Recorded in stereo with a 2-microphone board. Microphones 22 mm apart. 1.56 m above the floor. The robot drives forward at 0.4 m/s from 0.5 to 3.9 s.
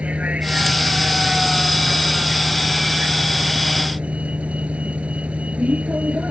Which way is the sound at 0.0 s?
85° right.